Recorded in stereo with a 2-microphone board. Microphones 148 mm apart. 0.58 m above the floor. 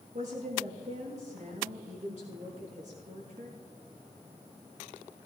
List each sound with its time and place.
0.1 s a woman speaking: 55° right (ahead or behind), 6.5 m